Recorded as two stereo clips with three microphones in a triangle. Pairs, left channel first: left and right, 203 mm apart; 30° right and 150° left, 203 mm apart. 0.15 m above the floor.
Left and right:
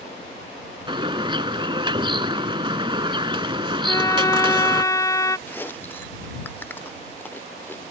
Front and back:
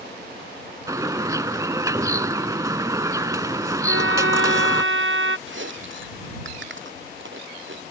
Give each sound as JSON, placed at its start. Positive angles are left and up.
{"t": 0.9, "sound": "a bird", "azimuth_deg": -145}
{"t": 3.8, "sound": "a violin", "azimuth_deg": 165}
{"t": 5.5, "sound": "chewing", "azimuth_deg": 170}